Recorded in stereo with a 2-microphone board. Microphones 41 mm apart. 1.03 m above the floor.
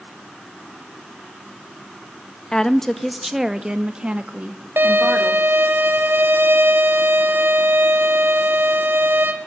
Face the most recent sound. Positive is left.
turn(degrees=-70)  # may be behind; listen again after turning